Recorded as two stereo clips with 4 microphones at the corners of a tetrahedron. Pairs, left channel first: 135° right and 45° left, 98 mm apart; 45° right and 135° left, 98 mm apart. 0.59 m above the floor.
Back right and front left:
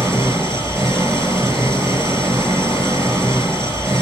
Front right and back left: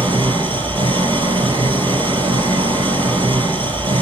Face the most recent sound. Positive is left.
turn(degrees=105)